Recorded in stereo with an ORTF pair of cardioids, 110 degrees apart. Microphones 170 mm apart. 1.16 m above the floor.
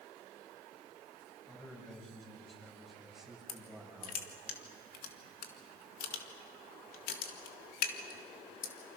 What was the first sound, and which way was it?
A man speaking, 5° left.